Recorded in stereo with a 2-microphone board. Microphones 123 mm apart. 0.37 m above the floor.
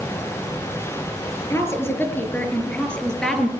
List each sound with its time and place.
1.5 s a woman speaking: 20° left (ahead or behind), 6.5 m; by 3.5 s 5° left (ahead or behind), 5.5 m